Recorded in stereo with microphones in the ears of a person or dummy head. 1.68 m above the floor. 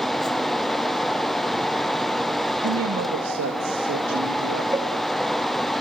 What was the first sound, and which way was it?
A fan, centre (ahead or behind).